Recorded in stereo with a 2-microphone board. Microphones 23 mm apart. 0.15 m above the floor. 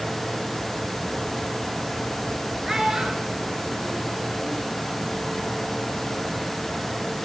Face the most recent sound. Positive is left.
turn(degrees=-60)  # may be behind; listen again after turning